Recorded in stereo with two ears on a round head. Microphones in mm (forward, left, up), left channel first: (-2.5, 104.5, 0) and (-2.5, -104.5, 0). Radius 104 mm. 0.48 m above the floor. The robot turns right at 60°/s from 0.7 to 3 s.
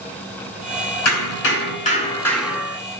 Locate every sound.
1.1 s hammering: 100° left, 5 m; by 2.8 s 155° right, 5 m